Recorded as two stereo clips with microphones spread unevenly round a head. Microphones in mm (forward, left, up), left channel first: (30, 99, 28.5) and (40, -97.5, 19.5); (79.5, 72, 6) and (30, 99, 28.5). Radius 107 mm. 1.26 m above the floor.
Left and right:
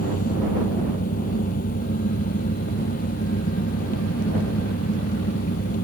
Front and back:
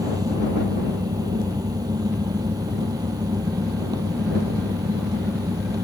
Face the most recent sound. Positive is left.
turn(degrees=150)